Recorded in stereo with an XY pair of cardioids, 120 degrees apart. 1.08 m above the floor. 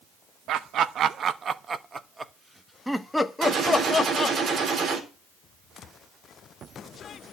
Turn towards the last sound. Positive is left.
turn(degrees=-55)